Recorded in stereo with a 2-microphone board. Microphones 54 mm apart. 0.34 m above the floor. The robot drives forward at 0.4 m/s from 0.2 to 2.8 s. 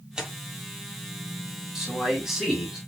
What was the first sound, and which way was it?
Tearing paper, 15° right (ahead or behind).